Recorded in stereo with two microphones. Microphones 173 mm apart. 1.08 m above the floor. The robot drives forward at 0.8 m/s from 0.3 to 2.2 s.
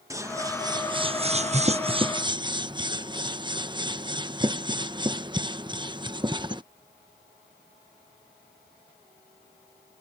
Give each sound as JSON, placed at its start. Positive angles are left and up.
{"t": 0.1, "sound": "scissors", "side_deg": -20}